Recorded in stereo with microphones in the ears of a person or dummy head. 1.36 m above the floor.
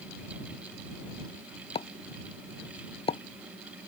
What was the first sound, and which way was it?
A pop, 30° left (ahead or behind).